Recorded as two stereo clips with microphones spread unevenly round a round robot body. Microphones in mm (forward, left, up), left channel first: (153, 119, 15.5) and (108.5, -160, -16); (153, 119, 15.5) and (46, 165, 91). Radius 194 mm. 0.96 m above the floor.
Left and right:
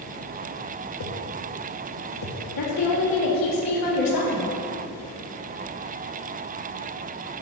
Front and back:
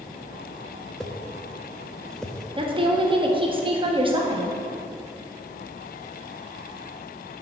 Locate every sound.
1.0 s a whoosh: 65° left, 1.0 m
2.6 s a woman speaking: 100° left, 1.6 m